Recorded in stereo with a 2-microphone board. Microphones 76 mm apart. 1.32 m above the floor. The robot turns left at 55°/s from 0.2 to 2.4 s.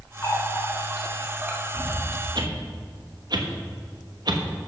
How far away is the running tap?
About 1.8 m.